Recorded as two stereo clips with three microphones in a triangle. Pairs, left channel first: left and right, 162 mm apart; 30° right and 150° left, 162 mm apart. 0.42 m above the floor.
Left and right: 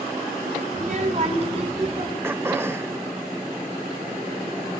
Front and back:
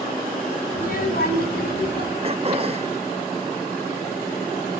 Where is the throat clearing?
160° right, 0.8 m.